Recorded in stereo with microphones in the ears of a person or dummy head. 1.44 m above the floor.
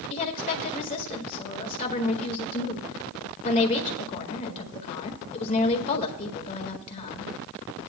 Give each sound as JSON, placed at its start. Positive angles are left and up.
{"t": 0.1, "sound": "a woman speaking", "side_deg": 40, "distance_m": 1.9}